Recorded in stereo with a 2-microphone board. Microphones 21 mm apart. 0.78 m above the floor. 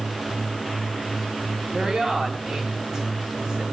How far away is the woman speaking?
About 6.5 m.